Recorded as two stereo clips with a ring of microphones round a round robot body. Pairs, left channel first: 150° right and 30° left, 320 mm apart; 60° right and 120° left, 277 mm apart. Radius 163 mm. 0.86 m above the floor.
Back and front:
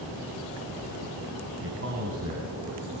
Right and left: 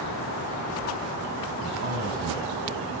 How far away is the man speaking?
About 6.5 m.